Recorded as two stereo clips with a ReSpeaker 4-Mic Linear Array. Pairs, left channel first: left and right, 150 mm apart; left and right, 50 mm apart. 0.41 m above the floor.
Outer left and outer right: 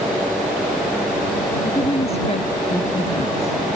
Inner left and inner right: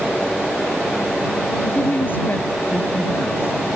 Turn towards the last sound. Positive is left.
turn(degrees=50)  # may be behind; listen again after turning